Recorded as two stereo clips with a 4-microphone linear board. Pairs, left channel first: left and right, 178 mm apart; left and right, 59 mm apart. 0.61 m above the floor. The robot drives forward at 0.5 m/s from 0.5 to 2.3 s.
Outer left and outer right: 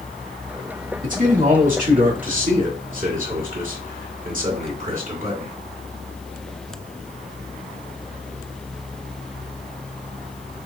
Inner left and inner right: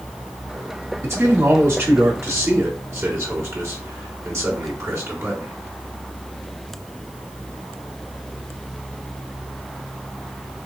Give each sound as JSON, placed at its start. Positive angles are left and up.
{"t": 1.0, "sound": "a man speaking", "side_deg": -50, "distance_m": 1.8}